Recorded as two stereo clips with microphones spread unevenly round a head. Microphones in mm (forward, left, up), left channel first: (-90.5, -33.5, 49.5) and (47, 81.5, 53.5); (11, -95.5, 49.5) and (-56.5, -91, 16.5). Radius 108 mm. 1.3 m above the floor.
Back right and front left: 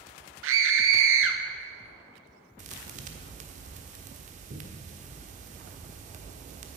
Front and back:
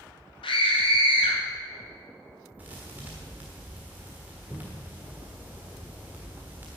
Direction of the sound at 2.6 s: 75° left.